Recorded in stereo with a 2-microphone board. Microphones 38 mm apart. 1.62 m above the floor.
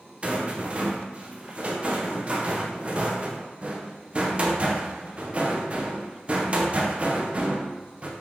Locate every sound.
0.2 s a rattle: 35° right (ahead or behind), 0.6 m